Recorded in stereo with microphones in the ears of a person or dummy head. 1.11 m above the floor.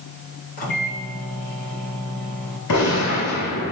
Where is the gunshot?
70° left (ahead or behind), 5.5 m.